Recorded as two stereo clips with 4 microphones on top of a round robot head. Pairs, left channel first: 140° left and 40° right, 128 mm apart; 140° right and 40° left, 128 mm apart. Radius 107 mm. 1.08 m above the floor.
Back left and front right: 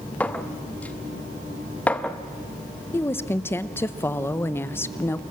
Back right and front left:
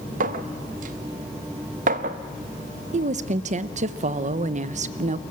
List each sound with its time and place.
0.2 s a clink: 60° left, 0.8 m
2.9 s a woman speaking: 70° left, 0.7 m